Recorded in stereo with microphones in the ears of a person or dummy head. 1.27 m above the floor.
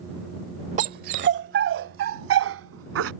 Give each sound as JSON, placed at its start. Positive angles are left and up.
{"t": 0.8, "sound": "a dog barking", "side_deg": -40}